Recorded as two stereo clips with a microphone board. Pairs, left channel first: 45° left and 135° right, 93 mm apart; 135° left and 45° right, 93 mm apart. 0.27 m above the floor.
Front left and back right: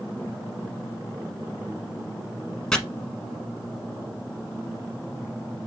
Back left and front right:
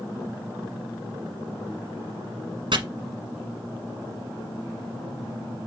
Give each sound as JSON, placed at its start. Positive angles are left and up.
{"t": 2.7, "sound": "chopping", "azimuth_deg": -40, "distance_m": 1.2}